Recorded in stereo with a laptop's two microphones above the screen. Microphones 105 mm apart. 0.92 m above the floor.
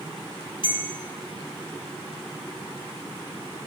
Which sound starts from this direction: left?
A bell, at 0.6 s.